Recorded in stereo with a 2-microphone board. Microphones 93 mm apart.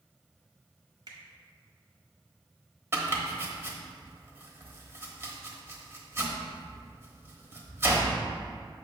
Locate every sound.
1.1 s a finger snap: 45° right (ahead or behind), 1.4 m
2.9 s chopping: 25° right (ahead or behind), 1.0 m